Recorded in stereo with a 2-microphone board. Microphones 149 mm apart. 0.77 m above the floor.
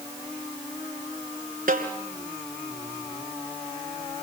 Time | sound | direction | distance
1.7 | a snare drum | 70° right (ahead or behind) | 2.5 m